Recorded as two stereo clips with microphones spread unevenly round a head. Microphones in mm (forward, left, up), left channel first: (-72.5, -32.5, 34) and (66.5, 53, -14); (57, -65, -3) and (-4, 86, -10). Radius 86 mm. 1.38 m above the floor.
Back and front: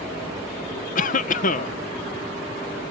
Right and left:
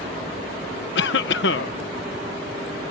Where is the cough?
95° right.